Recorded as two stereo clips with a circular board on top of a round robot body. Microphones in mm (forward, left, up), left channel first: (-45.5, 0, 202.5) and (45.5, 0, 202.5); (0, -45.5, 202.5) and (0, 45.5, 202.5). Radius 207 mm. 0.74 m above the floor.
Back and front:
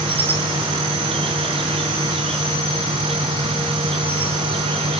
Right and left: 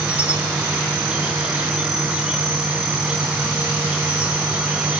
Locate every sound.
0.0 s an insect: 10° left, 3 m